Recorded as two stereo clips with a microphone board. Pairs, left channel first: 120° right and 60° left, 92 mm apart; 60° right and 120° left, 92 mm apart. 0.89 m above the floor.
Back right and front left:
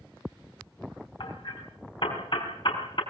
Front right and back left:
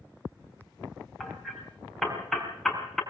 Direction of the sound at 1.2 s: 145° right.